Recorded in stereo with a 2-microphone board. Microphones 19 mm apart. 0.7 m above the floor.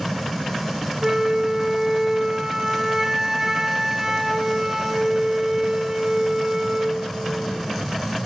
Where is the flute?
25° right (ahead or behind), 0.6 m.